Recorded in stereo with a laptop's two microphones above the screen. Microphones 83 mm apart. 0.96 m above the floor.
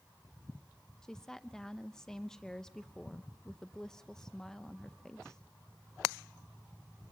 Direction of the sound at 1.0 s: 5° left (ahead or behind).